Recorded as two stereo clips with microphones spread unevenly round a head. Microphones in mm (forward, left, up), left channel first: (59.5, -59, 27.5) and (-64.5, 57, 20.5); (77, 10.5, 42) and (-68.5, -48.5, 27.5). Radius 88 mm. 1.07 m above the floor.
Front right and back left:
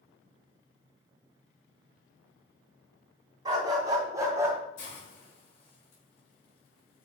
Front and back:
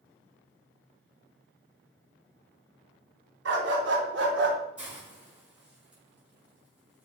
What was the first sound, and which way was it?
A dog barking, 155° right.